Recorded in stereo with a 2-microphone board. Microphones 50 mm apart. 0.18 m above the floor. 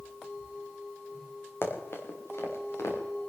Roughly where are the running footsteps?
Left.